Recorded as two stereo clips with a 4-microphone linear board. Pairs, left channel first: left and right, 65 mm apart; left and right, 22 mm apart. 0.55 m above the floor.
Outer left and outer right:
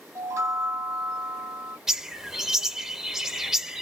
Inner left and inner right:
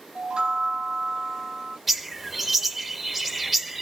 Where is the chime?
45° right (ahead or behind), 0.9 m.